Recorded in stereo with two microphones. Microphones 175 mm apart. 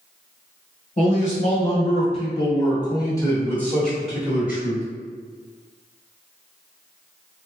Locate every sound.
1.0 s a man speaking: 45° left (ahead or behind), 1.7 m; by 4.8 s 10° right (ahead or behind), 1.3 m